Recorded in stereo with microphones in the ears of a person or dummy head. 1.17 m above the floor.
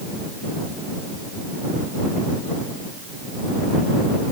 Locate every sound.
Only background noise.